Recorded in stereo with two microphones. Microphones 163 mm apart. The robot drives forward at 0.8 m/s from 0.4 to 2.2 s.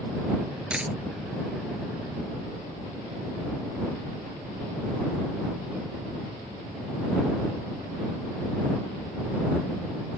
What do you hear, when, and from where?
0.7 s a dropped coin: 5° right (ahead or behind)